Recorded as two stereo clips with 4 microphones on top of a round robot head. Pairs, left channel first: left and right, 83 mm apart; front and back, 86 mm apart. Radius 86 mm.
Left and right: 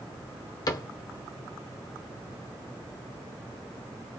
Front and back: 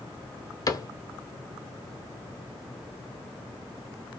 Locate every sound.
0.7 s a cupboard door: 45° left, 0.8 m